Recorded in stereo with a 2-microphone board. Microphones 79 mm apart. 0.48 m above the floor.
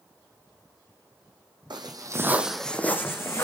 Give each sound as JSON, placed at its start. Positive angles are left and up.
{"t": 1.7, "sound": "footsteps", "side_deg": -65, "distance_m": 1.3}